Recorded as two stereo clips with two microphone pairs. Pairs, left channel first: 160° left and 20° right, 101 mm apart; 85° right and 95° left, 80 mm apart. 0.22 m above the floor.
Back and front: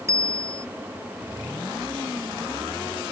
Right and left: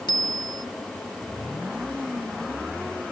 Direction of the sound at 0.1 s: 75° right.